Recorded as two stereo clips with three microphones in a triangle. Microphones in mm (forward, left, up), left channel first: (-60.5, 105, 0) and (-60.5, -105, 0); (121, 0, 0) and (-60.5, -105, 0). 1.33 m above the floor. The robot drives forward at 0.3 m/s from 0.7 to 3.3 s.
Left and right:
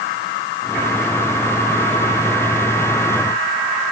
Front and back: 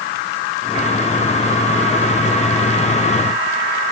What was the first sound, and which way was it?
Only background noise.